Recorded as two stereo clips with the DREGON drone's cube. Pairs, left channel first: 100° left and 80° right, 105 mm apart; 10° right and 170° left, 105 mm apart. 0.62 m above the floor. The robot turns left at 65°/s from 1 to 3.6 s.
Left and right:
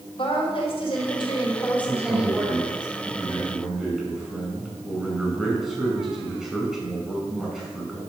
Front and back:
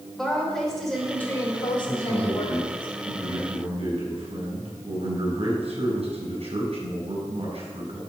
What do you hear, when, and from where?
0.2 s a woman speaking: 80° left, 2.5 m; by 2.9 s 45° right, 2.5 m
1.9 s a man speaking: 60° right, 5.5 m; by 8.0 s 170° right, 5.5 m